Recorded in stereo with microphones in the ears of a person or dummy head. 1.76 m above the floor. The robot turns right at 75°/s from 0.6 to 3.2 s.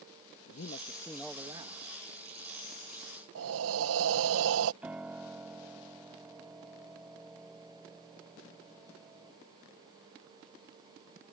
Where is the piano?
5° right (ahead or behind).